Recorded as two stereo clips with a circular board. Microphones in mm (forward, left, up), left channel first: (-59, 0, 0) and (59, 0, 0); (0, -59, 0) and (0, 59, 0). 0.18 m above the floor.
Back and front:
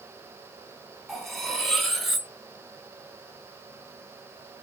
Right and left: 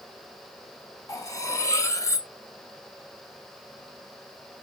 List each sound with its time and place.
1.1 s cutlery clinking: 90° right, 0.6 m